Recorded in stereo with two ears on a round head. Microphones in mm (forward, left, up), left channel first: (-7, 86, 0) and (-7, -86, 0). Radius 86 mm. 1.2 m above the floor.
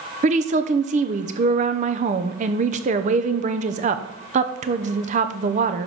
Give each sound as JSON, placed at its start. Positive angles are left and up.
{"t": 0.2, "sound": "a woman speaking", "side_deg": -40, "distance_m": 0.7}